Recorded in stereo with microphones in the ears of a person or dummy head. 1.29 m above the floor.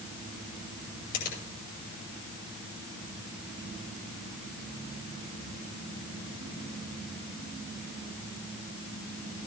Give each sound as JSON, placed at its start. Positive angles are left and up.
{"t": 1.1, "sound": "a finger snap", "side_deg": 55, "distance_m": 6.5}